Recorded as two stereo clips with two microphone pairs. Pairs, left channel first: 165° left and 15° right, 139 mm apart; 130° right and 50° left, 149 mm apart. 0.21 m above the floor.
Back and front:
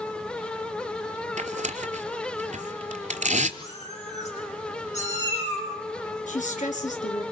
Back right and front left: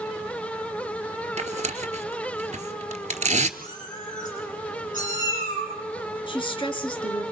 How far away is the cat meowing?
About 5.5 m.